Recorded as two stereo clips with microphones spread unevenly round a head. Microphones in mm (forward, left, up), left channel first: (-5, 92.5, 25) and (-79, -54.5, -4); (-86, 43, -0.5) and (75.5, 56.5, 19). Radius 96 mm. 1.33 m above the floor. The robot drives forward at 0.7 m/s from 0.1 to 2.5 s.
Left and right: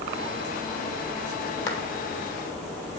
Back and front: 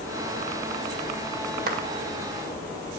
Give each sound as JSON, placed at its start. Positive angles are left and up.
{"t": 1.7, "sound": "a clap", "azimuth_deg": 25, "distance_m": 2.0}